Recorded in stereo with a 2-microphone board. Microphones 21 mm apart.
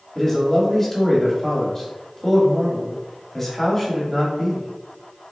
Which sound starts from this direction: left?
A man speaking, at 0.1 s.